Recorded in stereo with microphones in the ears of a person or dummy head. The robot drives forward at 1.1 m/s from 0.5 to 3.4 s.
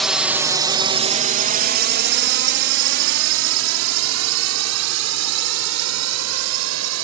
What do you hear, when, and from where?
0.0 s a drone: 5° left (ahead or behind); by 7.0 s 85° right